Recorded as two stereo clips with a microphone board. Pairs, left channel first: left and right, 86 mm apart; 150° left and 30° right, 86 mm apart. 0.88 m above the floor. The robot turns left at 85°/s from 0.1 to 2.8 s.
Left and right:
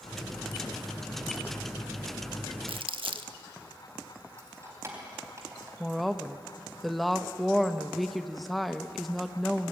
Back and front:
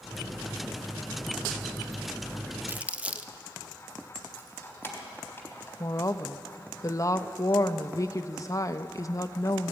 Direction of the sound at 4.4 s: 145° right.